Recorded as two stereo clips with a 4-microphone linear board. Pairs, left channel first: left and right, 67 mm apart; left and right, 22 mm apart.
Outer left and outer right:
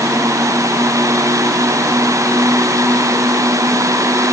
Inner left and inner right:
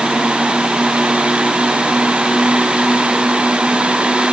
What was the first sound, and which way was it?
Only background noise.